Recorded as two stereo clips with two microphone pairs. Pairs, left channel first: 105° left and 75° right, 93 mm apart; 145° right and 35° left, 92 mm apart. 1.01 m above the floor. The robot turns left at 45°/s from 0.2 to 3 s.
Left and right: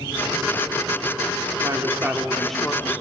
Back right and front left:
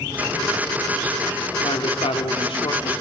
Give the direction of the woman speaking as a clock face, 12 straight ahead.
4 o'clock.